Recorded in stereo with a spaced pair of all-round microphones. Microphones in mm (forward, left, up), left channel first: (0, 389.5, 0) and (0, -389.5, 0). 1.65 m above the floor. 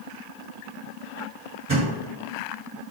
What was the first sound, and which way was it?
A thud, 25° right (ahead or behind).